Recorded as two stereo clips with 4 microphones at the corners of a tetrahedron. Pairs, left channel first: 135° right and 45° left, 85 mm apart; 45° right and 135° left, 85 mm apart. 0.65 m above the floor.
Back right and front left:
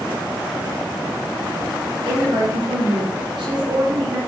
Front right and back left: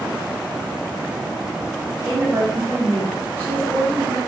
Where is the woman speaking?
75° left, 2.5 m.